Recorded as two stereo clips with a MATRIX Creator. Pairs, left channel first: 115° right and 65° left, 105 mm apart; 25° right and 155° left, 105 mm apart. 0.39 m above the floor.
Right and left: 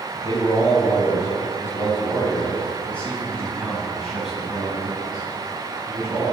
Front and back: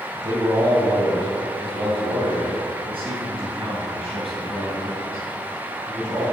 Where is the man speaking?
155° right, 2.5 m; by 6.2 s 145° left, 4 m.